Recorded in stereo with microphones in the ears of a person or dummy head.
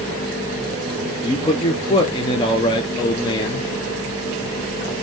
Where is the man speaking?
30° left (ahead or behind), 0.8 m.